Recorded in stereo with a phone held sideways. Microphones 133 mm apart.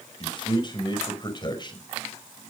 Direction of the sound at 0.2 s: 35° left (ahead or behind).